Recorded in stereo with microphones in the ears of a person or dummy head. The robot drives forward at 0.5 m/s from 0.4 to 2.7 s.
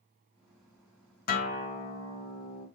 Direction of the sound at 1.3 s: 50° left (ahead or behind).